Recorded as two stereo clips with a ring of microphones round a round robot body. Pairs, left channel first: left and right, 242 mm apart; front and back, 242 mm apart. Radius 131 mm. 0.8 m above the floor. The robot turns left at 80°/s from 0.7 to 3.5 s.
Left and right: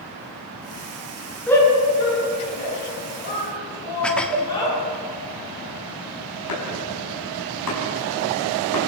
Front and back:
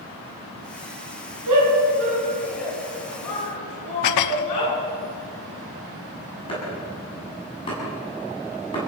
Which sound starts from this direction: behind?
A shout, at 1.5 s.